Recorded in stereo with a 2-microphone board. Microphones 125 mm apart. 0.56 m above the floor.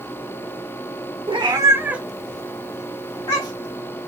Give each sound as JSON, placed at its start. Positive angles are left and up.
{"t": 1.3, "sound": "a cat meowing", "side_deg": -45, "distance_m": 0.7}